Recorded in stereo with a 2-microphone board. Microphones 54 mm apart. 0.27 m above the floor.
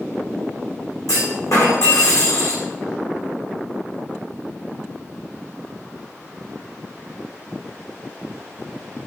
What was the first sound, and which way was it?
A clunk, 85° left.